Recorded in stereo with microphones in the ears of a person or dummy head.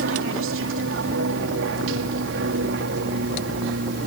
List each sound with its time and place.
0.0 s an aircraft: 65° right (ahead or behind)